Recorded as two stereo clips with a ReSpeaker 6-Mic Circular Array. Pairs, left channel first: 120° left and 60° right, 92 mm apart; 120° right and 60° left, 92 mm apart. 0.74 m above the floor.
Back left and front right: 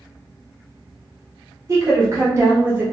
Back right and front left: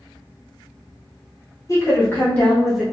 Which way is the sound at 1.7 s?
90° right.